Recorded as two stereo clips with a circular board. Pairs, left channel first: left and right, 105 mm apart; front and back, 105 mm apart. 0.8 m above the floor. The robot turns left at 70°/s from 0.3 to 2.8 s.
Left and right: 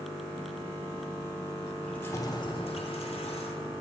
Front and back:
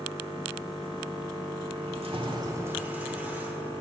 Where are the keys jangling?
175° left, 1.2 m; by 3.7 s 105° left, 1.2 m.